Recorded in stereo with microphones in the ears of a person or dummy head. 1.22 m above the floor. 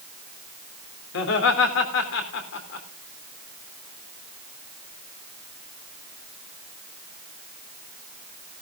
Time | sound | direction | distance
1.1 | laughter | 75° left (ahead or behind) | 3 m